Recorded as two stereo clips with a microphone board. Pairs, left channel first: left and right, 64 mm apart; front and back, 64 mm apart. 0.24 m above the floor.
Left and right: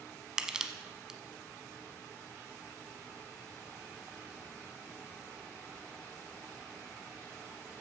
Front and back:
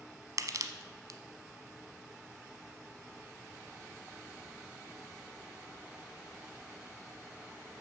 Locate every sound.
0.4 s crushing: 170° right, 0.7 m